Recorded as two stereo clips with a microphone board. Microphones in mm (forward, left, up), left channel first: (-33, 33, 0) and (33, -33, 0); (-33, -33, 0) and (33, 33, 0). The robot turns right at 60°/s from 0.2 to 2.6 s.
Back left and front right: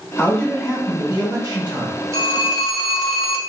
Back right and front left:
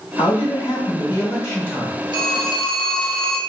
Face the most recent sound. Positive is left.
turn(degrees=35)